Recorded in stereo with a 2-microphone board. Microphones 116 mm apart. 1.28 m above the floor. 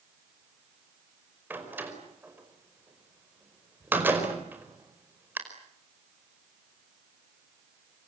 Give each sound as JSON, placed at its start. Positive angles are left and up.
{"t": 1.5, "sound": "a door slam", "side_deg": -15, "distance_m": 5.0}